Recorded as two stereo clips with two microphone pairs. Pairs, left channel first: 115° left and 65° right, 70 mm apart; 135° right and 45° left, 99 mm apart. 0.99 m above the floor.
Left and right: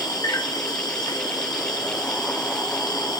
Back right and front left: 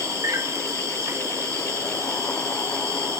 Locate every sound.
0.0 s an insect: 105° left, 1.0 m